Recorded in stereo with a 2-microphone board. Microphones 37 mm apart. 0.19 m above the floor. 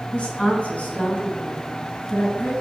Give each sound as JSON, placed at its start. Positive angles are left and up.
{"t": 0.1, "sound": "a woman speaking", "side_deg": 30, "distance_m": 2.0}